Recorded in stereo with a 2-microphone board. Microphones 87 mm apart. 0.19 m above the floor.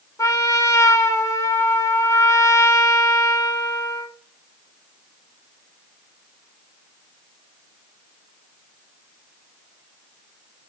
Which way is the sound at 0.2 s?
45° left (ahead or behind).